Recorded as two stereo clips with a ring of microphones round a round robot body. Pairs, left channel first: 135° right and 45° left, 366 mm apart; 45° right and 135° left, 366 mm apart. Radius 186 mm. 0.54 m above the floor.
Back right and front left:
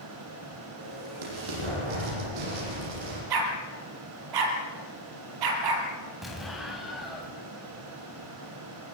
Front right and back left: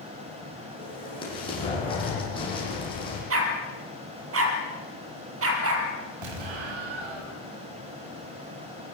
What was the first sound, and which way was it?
An explosion, 35° left.